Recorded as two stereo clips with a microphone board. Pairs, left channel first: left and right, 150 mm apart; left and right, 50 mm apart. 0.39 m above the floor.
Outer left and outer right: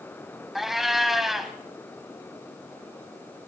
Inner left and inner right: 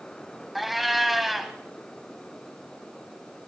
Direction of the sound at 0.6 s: Centre (ahead or behind).